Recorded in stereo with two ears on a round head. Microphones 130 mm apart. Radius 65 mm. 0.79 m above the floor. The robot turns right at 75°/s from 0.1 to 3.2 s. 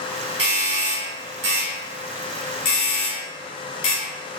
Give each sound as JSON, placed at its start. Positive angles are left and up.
{"t": 0.4, "sound": "a doorbell", "side_deg": -40, "distance_m": 1.9}